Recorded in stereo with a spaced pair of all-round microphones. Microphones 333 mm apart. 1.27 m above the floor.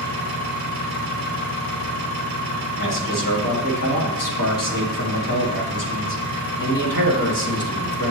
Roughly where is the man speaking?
Left.